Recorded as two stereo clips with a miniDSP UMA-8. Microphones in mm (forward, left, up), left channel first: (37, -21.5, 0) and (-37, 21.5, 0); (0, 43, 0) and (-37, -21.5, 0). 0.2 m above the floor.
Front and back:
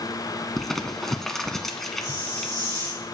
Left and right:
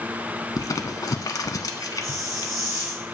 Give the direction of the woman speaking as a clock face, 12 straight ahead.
No woman speaking in this recording.